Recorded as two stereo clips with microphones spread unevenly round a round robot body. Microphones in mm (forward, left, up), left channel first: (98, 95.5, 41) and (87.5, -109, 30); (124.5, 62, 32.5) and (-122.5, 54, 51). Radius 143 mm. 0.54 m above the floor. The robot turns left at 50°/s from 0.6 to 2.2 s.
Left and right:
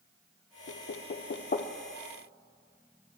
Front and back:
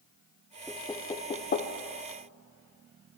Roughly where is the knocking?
Left.